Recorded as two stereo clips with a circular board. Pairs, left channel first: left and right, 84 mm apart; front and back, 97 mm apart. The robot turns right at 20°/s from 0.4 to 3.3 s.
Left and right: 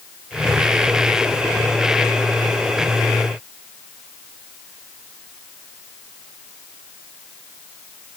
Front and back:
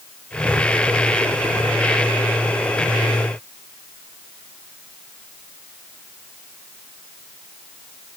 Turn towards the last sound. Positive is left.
No sound to turn to.